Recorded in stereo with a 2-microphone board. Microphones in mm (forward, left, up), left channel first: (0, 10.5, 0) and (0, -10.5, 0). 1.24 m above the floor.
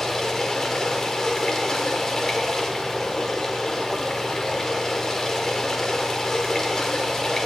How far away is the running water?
About 1.9 m.